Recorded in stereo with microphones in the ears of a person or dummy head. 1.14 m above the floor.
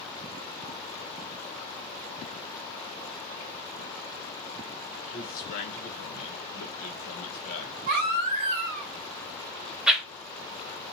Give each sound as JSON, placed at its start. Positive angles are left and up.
{"t": 5.1, "sound": "a man speaking", "side_deg": 45, "distance_m": 1.1}
{"t": 7.9, "sound": "a baby crying", "side_deg": -55, "distance_m": 1.5}
{"t": 9.9, "sound": "a whoosh", "side_deg": -5, "distance_m": 0.6}